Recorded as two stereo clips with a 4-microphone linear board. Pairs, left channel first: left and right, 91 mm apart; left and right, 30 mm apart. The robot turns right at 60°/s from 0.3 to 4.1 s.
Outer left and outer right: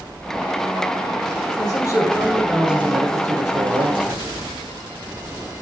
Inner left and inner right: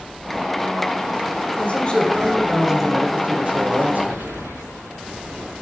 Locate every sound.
1.6 s a man speaking: 125° left, 4 m; by 4.4 s 85° right, 4 m